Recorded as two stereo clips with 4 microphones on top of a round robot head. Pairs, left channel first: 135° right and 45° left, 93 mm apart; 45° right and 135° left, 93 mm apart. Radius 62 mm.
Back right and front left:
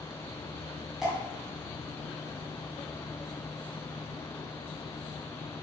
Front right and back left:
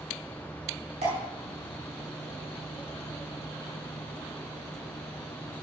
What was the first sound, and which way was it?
Dripping, 130° left.